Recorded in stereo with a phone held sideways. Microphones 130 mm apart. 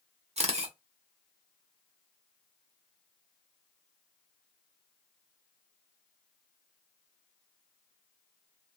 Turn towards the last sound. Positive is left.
turn(degrees=-55)  # may be behind; listen again after turning